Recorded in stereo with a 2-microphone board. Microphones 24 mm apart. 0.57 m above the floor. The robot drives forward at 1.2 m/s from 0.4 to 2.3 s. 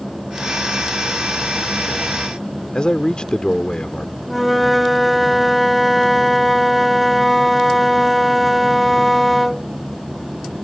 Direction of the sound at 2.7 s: 45° left (ahead or behind).